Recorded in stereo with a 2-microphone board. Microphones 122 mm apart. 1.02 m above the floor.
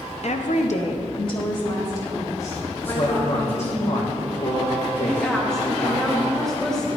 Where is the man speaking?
60° left (ahead or behind), 1.0 m.